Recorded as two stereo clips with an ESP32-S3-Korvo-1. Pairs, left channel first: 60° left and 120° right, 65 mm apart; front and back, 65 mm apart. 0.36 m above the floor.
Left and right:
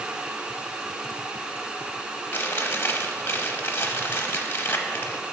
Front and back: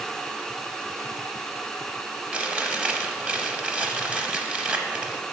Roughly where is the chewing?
Left.